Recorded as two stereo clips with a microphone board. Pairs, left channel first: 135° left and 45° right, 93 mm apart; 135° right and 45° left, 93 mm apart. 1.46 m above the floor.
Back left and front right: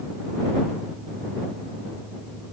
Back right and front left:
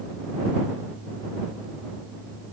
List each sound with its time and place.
Only background noise.